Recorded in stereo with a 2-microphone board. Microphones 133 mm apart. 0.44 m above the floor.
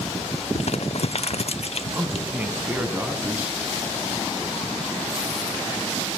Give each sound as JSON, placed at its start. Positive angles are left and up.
{"t": 0.6, "sound": "crumpling", "side_deg": 55, "distance_m": 0.6}
{"t": 1.9, "sound": "a man speaking", "side_deg": -15, "distance_m": 4.0}